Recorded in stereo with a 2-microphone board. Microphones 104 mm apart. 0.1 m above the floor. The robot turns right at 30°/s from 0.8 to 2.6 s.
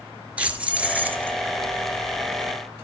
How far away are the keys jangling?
About 1.0 m.